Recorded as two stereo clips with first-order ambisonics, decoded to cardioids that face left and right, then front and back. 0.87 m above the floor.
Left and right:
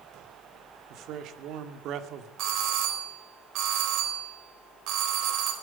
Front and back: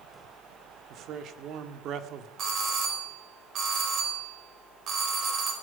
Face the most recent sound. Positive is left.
turn(degrees=-125)